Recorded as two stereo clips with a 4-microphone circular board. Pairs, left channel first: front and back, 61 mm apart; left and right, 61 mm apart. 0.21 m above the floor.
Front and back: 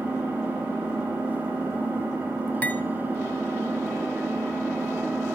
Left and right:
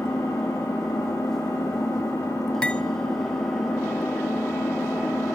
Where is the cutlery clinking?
30° left, 0.7 m.